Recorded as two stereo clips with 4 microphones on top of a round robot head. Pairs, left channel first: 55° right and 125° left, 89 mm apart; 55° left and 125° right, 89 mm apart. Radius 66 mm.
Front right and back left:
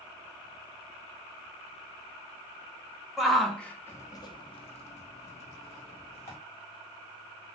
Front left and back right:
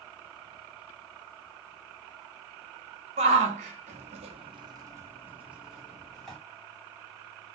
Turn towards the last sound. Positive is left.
turn(degrees=-35)